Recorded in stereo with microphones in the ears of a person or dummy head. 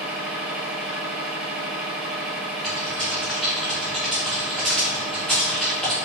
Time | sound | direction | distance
0.0 | a machine running | 10° right (ahead or behind) | 1.7 m
2.6 | typing on a keyboard | centre (ahead or behind) | 1.4 m